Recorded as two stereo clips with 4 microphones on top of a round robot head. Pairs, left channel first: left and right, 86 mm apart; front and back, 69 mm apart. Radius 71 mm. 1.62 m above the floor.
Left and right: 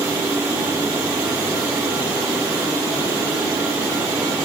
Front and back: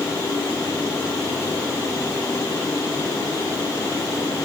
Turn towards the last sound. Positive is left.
No sound to turn to.